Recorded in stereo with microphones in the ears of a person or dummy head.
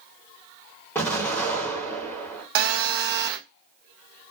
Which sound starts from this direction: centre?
An explosion, at 0.9 s.